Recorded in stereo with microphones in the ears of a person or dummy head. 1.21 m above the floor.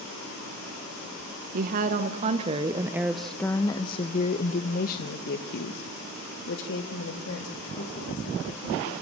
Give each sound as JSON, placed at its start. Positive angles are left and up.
{"t": 1.5, "sound": "a woman speaking", "side_deg": -55, "distance_m": 1.2}